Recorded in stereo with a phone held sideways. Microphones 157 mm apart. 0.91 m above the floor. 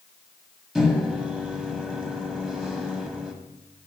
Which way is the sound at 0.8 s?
5° right (ahead or behind).